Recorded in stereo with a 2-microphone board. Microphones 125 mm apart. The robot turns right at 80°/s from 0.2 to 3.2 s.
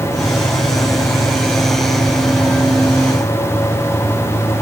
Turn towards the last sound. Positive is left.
No sound to turn to.